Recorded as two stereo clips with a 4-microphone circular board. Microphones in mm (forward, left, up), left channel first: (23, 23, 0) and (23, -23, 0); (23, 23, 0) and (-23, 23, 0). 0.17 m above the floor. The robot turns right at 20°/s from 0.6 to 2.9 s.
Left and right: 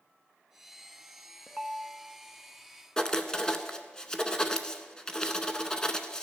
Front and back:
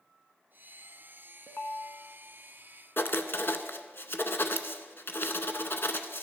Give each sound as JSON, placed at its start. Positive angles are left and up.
{"t": 1.5, "sound": "a ringtone", "azimuth_deg": -20, "distance_m": 0.7}
{"t": 3.0, "sound": "writing", "azimuth_deg": 20, "distance_m": 0.6}